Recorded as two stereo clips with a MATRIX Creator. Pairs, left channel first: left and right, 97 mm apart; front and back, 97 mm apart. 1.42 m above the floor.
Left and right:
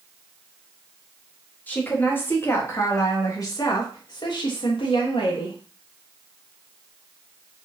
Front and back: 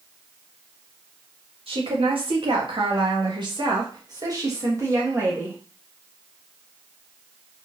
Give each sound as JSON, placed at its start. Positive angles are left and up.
{"t": 1.7, "sound": "a woman speaking", "azimuth_deg": 165, "distance_m": 3.0}